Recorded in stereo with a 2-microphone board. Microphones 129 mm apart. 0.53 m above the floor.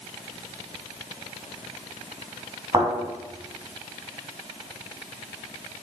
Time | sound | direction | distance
2.7 | a thud | 30° right (ahead or behind) | 2.0 m